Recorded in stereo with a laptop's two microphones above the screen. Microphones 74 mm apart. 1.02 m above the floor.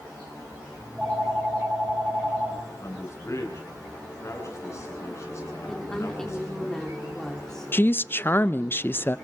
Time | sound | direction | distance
0.8 | a phone ringing | 10° right (ahead or behind) | 6 m
2.8 | a man speaking | 40° left (ahead or behind) | 10 m
5.7 | a woman speaking | 5° left (ahead or behind) | 3 m
7.7 | a woman speaking | 30° left (ahead or behind) | 0.5 m